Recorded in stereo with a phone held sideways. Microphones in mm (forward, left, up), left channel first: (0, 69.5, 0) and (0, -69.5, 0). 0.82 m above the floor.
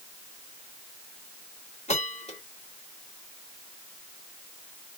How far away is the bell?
About 1.6 m.